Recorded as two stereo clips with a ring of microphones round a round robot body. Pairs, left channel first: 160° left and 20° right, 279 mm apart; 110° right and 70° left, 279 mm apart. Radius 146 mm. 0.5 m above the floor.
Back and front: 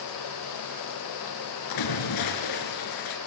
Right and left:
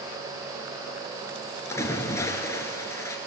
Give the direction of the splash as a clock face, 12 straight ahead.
6 o'clock.